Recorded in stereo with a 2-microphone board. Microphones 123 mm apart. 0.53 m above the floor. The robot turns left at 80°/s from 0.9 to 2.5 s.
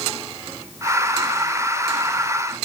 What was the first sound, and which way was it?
Only background noise.